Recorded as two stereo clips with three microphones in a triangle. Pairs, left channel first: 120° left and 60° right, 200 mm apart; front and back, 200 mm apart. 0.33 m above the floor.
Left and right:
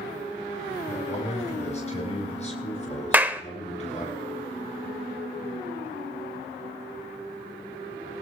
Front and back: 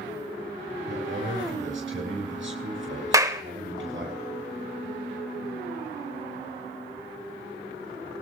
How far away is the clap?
About 0.8 m.